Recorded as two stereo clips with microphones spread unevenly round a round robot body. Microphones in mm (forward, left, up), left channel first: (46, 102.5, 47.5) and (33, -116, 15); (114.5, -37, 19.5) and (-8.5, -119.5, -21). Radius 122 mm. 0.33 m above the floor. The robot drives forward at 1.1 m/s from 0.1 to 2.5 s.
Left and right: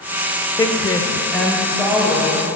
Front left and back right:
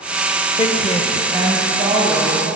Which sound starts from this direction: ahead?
A woman speaking, at 0.6 s.